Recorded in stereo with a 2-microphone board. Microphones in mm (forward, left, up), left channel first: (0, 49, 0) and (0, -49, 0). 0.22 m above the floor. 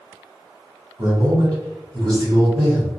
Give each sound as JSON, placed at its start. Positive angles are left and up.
{"t": 1.0, "sound": "a man speaking", "side_deg": -35, "distance_m": 1.4}